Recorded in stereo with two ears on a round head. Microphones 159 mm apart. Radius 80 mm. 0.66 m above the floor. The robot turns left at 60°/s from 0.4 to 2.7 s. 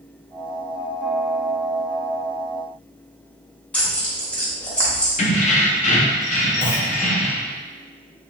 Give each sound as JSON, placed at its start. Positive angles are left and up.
{"t": 3.7, "sound": "tearing paper", "side_deg": 5, "distance_m": 0.7}
{"t": 5.2, "sound": "keys jangling", "side_deg": 40, "distance_m": 0.5}
{"t": 6.6, "sound": "a clunk", "side_deg": 30, "distance_m": 0.7}